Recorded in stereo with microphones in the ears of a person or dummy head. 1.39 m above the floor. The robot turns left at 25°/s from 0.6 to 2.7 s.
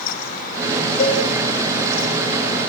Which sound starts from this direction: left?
A cowbell, at 1.0 s.